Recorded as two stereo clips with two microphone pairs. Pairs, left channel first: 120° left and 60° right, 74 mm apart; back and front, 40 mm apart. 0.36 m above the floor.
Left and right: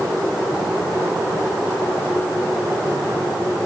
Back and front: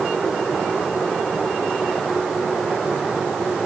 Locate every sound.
Only background noise.